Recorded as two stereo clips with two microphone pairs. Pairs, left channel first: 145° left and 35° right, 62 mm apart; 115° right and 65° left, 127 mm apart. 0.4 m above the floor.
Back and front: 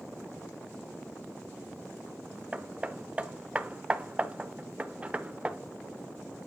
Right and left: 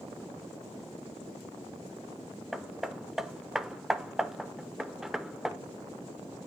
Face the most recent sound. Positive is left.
turn(degrees=-15)